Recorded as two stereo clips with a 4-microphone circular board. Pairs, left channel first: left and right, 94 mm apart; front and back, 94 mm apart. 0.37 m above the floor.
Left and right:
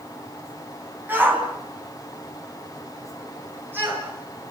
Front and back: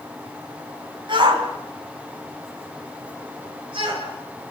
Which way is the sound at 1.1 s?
160° right.